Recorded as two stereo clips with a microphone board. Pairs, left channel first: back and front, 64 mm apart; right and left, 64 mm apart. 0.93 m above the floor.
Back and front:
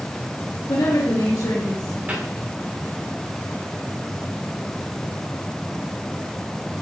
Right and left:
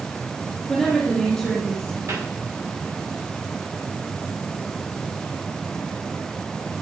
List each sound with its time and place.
0.7 s a woman speaking: 175° right, 1.6 m; by 2.0 s 170° right, 3 m
2.1 s a cupboard door: 65° left, 3 m